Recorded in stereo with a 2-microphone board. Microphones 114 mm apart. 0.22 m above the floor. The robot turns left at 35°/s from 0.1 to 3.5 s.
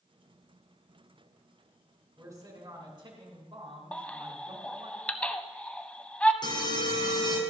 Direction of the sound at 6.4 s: 40° left (ahead or behind).